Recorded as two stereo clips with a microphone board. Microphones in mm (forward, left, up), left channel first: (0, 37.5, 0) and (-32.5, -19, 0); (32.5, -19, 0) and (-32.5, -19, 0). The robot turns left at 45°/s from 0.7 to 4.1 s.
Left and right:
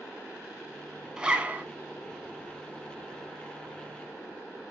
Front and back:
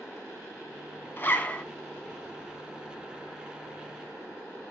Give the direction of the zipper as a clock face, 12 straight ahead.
2 o'clock.